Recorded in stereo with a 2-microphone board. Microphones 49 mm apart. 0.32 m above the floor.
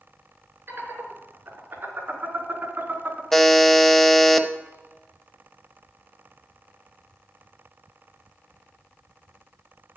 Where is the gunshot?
I don't hear a gunshot.